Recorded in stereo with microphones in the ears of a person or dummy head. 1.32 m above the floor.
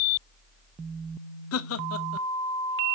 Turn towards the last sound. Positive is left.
turn(degrees=75)  # may be behind; listen again after turning